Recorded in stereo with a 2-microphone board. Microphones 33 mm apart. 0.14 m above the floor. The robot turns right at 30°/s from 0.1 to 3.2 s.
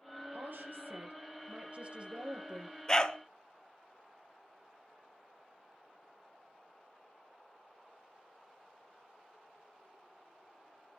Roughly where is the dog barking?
Centre.